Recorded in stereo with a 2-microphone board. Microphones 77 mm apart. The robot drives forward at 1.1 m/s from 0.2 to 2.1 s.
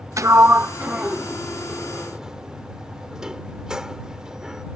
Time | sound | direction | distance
0.2 | a sliding door | 40° right (ahead or behind) | ?